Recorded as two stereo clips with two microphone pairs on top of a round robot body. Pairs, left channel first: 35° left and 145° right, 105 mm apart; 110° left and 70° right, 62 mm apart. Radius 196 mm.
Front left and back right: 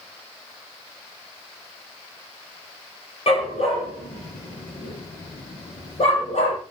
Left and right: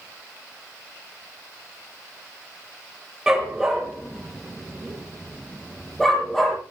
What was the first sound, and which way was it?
A dog barking, 15° left.